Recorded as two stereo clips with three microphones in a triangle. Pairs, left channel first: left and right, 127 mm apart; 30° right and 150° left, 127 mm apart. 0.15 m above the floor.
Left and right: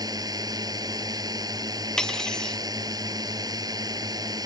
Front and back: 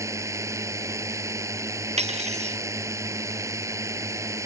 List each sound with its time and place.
0.0 s a drone: 145° right
2.0 s cutlery clinking: 175° left